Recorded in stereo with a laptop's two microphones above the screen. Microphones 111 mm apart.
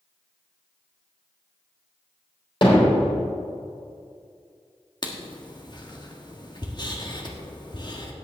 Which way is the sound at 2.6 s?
50° left (ahead or behind).